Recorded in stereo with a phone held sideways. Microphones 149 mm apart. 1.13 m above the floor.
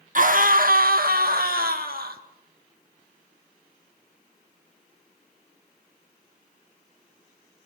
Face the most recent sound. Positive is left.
turn(degrees=-75)  # may be behind; listen again after turning